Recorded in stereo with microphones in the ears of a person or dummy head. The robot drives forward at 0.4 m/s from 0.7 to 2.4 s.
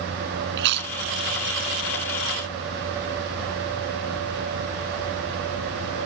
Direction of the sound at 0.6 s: 65° right (ahead or behind).